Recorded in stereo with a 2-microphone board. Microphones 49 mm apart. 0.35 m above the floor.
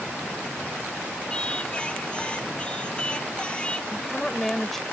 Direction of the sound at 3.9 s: 10° left (ahead or behind).